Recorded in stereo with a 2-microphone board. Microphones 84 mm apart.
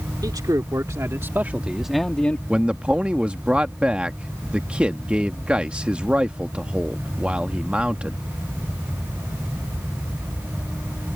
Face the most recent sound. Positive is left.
turn(degrees=-15)  # may be behind; listen again after turning